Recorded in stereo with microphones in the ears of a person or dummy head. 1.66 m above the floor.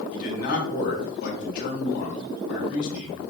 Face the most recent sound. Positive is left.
turn(degrees=50)  # may be behind; listen again after turning